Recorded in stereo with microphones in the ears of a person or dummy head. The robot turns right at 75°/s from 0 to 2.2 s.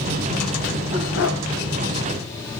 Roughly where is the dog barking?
Left.